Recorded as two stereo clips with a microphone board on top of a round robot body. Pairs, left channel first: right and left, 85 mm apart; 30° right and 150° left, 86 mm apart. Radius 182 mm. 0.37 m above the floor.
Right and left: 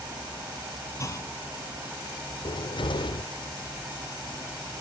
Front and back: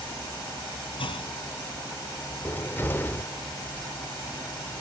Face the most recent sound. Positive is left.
turn(degrees=-95)